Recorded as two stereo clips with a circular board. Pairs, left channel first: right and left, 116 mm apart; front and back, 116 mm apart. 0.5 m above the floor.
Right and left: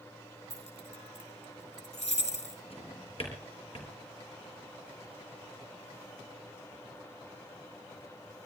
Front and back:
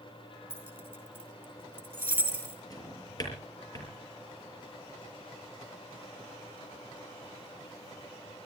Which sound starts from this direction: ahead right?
A drawer, at 2.7 s.